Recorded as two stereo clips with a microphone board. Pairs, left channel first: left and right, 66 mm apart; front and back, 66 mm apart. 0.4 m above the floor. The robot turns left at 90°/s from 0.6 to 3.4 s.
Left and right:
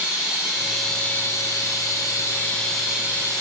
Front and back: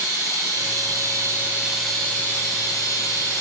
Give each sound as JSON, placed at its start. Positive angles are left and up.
{"t": 0.0, "sound": "running water", "azimuth_deg": -160, "distance_m": 2.5}